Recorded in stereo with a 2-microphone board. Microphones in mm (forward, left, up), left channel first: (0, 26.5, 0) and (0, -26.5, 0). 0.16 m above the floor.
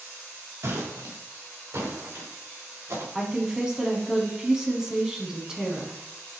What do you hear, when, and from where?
0.6 s footsteps: 65° right (ahead or behind), 3 m
3.1 s a woman speaking: 10° right (ahead or behind), 1.2 m